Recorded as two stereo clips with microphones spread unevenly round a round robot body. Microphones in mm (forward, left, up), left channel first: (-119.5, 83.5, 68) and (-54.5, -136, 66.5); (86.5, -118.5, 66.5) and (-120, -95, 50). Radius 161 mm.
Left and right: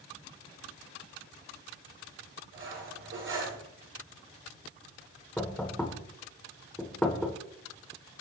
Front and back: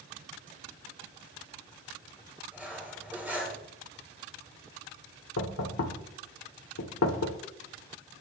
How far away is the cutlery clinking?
About 9.5 m.